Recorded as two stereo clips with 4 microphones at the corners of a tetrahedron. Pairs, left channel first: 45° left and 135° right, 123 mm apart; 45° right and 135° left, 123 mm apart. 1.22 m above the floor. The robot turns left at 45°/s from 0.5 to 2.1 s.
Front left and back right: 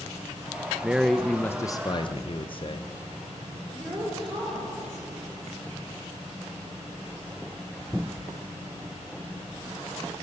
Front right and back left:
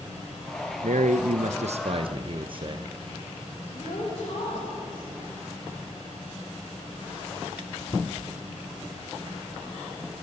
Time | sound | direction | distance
0.8 | a man speaking | 145° left | 0.7 m
3.7 | a woman speaking | 85° right | 5.5 m